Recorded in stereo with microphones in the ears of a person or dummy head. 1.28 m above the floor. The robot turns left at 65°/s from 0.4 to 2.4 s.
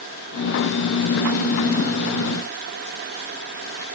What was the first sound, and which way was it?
Only background noise.